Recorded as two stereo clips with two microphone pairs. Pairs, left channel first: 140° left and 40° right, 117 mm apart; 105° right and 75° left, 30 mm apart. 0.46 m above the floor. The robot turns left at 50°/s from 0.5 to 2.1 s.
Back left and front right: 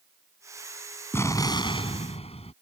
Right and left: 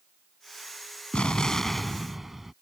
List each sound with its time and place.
1.1 s an explosion: 150° right; by 2.5 s 160° left